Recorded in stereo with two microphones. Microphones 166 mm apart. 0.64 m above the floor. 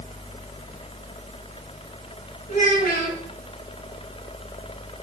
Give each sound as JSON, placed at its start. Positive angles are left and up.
{"t": 2.5, "sound": "a child speaking", "side_deg": 65, "distance_m": 3.5}